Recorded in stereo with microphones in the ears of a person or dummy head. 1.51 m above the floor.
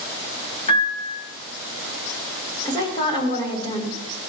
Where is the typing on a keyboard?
I don't hear typing on a keyboard.